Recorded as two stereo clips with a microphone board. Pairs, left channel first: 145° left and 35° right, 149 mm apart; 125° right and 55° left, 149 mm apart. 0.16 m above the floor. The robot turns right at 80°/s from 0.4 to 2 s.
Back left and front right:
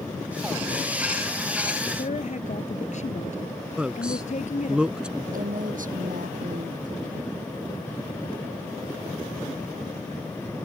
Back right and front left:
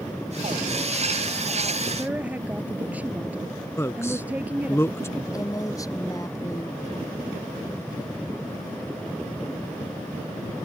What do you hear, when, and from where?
2.0 s a woman speaking: 130° left; by 4.8 s 135° left
3.8 s a man speaking: 105° right
5.3 s a woman speaking: 55° right